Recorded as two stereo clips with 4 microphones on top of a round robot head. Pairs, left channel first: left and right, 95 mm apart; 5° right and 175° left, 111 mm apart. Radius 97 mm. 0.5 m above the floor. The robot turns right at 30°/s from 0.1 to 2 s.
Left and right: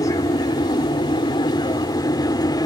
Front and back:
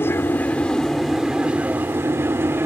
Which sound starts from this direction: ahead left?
An aircraft, at 0.0 s.